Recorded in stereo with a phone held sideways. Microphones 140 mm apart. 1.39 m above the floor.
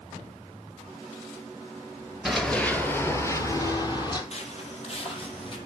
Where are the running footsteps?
Centre (ahead or behind), 1.6 m; by 4.2 s 35° left (ahead or behind), 2.5 m.